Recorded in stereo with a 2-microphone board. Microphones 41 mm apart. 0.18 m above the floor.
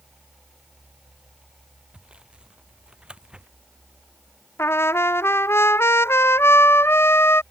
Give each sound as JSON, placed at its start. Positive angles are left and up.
{"t": 1.9, "sound": "sawing", "side_deg": -25}
{"t": 4.6, "sound": "a trumpet", "side_deg": 85}